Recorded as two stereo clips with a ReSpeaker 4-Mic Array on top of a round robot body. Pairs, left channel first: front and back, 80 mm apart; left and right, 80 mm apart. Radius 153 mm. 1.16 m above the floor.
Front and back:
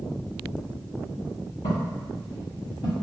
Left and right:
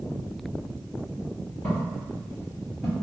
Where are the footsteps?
15° left, 1.8 m; by 2.9 s 5° right, 1.4 m.